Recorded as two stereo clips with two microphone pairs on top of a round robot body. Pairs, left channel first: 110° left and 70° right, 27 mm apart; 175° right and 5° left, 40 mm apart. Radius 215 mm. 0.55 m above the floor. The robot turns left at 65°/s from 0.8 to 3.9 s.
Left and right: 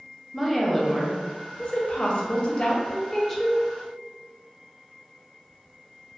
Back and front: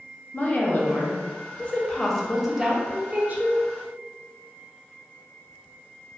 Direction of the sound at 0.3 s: 165° right.